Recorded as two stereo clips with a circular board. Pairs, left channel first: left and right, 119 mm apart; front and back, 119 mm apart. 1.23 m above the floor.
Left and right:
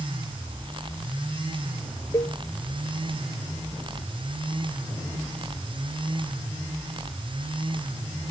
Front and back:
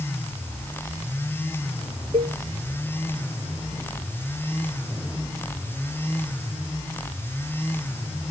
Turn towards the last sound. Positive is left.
turn(degrees=150)